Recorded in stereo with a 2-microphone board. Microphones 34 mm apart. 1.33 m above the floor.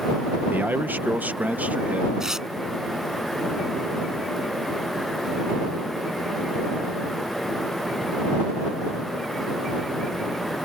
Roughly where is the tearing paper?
Centre.